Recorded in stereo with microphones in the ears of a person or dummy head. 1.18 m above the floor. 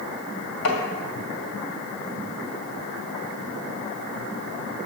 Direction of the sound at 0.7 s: 65° left (ahead or behind).